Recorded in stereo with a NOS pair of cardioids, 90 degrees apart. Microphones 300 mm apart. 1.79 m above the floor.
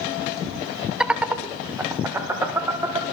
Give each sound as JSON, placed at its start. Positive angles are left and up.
{"t": 1.0, "sound": "laughter", "azimuth_deg": 0, "distance_m": 0.7}